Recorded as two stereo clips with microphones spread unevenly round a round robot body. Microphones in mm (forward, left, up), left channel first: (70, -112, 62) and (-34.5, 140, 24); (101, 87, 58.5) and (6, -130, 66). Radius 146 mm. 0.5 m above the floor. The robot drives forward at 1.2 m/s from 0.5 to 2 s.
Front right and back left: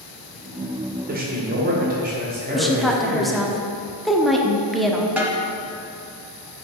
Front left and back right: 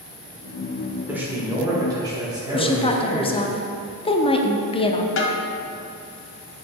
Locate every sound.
1.1 s a man speaking: 160° left, 1.7 m; by 3.5 s 170° left, 2.5 m
2.5 s a woman speaking: 40° left, 0.9 m
5.2 s a snare drum: 30° left, 1.4 m